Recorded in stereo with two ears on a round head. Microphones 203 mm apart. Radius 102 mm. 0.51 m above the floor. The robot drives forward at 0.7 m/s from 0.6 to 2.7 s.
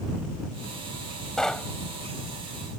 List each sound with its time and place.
1.4 s knocking: centre (ahead or behind); by 1.7 s 5° left (ahead or behind)